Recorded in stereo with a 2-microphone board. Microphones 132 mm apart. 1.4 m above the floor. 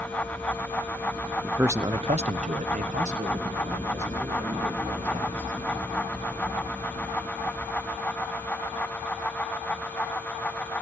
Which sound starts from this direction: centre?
A man speaking, at 1.4 s.